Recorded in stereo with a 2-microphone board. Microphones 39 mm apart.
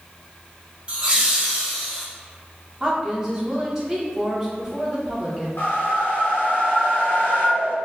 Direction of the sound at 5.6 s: 60° left (ahead or behind).